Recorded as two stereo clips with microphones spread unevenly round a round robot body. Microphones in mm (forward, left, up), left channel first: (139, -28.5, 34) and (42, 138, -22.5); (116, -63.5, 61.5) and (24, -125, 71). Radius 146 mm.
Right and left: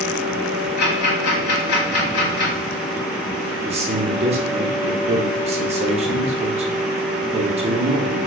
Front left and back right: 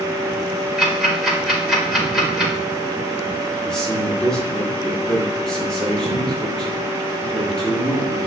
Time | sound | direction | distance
0.8 | ticking | 60° right | 2.0 m
3.6 | a man speaking | 110° left | 0.9 m